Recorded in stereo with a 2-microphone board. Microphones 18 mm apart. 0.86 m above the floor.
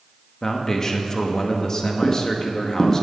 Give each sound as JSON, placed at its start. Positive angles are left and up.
{"t": 0.4, "sound": "a man speaking", "side_deg": 30, "distance_m": 1.3}
{"t": 2.0, "sound": "footsteps", "side_deg": 35, "distance_m": 2.5}